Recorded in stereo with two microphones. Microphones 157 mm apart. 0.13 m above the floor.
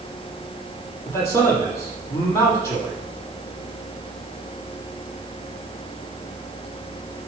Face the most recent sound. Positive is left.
turn(degrees=20)  # may be behind; listen again after turning